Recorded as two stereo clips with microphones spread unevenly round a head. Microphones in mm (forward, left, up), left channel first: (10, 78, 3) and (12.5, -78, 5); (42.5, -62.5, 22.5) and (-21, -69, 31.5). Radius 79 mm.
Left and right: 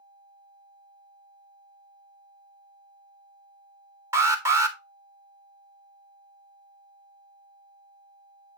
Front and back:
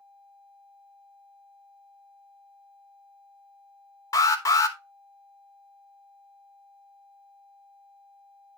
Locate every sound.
4.1 s an alarm: 20° right, 1.1 m